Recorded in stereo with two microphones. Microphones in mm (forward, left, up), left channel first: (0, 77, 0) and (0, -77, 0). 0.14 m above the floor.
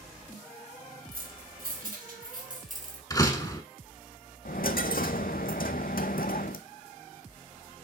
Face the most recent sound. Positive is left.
turn(degrees=75)  # may be behind; listen again after turning